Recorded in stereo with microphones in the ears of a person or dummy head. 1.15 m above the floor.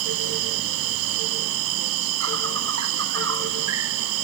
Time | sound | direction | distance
0.0 | an insect | 80° right | ?